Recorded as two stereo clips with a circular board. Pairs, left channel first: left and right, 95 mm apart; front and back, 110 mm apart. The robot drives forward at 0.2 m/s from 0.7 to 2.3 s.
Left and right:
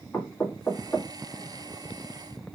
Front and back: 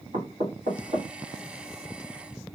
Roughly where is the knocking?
Behind.